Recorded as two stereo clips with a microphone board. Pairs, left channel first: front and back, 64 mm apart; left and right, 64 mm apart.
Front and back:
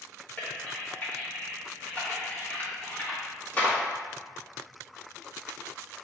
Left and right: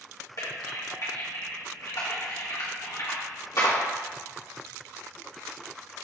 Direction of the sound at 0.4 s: 65° left.